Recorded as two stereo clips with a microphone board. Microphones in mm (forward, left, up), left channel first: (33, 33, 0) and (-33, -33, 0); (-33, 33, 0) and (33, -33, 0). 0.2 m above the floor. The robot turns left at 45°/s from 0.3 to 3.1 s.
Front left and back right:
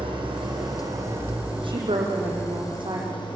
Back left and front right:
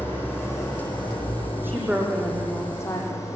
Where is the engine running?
155° right, 8 m; by 3.4 s 75° left, 8 m.